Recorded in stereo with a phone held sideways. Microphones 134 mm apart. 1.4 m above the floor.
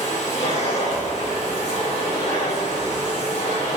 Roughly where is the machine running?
Left.